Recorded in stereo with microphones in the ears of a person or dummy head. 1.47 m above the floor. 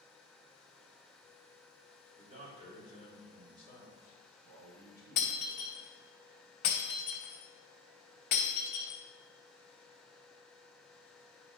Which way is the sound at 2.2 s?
40° right (ahead or behind).